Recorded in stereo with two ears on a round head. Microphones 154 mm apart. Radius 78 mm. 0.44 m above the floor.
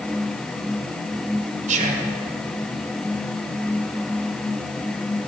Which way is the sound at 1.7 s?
45° right (ahead or behind).